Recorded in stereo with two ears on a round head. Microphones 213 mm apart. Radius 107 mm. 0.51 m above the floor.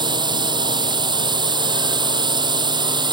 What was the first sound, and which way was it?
A drone, 20° right (ahead or behind).